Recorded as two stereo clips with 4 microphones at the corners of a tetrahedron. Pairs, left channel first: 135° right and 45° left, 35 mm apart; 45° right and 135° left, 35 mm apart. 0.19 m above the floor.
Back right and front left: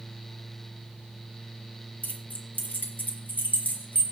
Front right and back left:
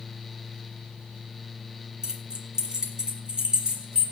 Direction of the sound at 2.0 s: 160° right.